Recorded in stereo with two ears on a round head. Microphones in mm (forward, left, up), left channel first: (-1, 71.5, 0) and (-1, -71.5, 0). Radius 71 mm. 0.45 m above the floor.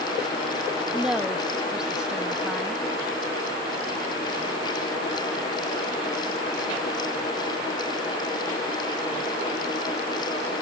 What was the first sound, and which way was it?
A woman speaking, 5° right (ahead or behind).